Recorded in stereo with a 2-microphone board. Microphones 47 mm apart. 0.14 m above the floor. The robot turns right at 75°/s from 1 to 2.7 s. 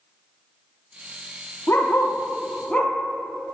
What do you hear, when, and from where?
1.7 s a dog barking: 65° left (ahead or behind), 1.6 m; by 2.9 s 25° left (ahead or behind), 1.6 m